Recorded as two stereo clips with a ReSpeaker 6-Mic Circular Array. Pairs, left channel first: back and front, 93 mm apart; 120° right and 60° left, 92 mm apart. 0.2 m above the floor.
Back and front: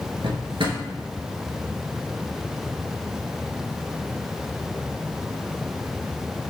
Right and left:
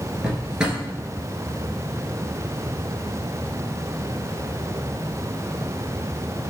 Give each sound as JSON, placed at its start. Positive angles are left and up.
{"t": 0.2, "sound": "a drawer", "azimuth_deg": -20, "distance_m": 1.0}